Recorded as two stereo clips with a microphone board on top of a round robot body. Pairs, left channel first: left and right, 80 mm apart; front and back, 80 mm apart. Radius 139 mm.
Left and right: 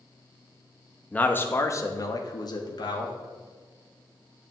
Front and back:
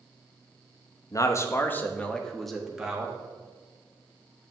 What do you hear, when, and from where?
1.1 s a man speaking: 20° left, 1.1 m; by 3.1 s 105° left, 1.6 m